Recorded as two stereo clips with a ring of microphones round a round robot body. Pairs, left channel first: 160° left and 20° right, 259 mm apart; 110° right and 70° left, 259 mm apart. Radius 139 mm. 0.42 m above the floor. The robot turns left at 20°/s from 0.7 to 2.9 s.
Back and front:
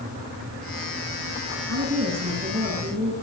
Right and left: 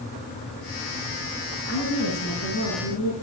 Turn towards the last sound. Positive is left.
turn(degrees=-85)